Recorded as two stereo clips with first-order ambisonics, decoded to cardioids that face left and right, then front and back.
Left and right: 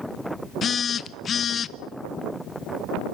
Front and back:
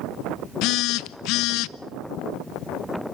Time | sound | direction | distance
0.6 | a phone buzzing | 25° left | 0.7 m